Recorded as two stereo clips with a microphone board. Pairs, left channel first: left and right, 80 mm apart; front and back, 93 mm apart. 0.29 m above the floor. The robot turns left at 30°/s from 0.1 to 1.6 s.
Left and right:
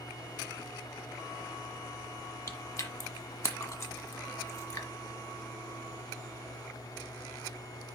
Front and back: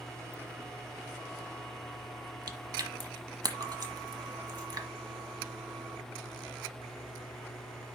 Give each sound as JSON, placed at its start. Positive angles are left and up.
{"t": 2.5, "sound": "chewing", "azimuth_deg": 140, "distance_m": 1.2}